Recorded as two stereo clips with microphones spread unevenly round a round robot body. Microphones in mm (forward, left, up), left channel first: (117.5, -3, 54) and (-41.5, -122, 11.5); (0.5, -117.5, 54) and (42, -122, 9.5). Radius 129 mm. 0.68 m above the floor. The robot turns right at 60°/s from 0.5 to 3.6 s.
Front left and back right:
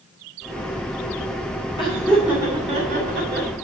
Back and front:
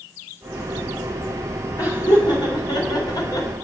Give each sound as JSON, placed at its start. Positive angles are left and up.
{"t": 1.8, "sound": "laughter", "azimuth_deg": 110, "distance_m": 2.0}